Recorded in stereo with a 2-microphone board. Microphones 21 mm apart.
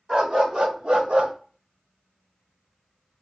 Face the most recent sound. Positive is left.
turn(degrees=-75)  # may be behind; listen again after turning